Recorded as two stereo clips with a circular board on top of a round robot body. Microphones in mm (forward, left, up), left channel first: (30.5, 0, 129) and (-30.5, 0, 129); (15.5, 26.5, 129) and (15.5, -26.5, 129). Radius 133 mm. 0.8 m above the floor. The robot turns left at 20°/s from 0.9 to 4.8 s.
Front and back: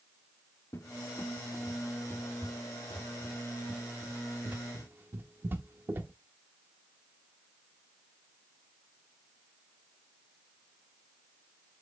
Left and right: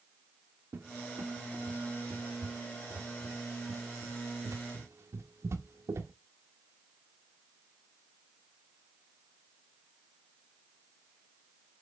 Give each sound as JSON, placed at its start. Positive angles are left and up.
{"t": 0.7, "sound": "a cupboard door", "azimuth_deg": -45, "distance_m": 1.0}